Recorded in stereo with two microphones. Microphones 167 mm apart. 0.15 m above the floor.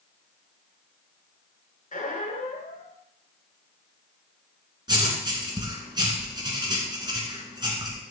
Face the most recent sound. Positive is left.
turn(degrees=-25)  # may be behind; listen again after turning